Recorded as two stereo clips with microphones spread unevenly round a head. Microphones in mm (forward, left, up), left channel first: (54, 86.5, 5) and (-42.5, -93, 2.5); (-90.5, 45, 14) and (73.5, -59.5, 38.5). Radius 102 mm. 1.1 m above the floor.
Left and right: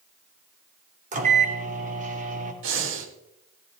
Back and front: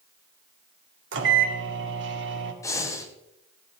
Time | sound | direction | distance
1.1 | a microwave | 65° right | 2 m
2.6 | breathing | 135° right | 1.5 m